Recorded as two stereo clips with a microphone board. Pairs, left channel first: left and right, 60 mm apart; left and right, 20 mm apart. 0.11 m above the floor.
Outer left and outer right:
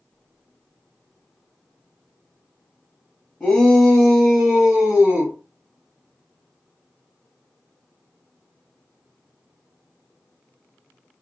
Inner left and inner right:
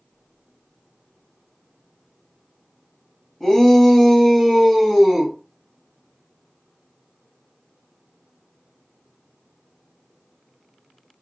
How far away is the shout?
About 1.7 m.